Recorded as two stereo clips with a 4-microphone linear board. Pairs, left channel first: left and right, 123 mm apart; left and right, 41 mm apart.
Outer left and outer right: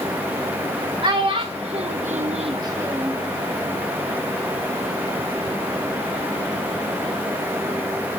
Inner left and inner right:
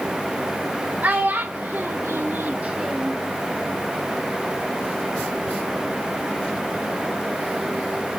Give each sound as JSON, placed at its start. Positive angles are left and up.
{"t": 1.0, "sound": "a child speaking", "side_deg": -40, "distance_m": 1.8}